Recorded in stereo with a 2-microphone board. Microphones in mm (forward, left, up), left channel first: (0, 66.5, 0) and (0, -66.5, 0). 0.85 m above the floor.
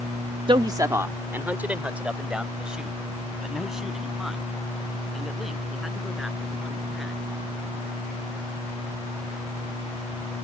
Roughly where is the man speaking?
Right.